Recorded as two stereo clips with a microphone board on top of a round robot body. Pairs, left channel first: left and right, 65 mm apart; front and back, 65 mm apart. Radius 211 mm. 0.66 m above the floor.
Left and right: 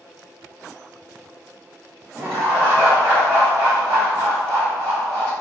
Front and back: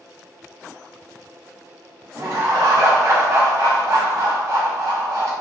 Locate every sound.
2.1 s laughter: 150° right, 1.8 m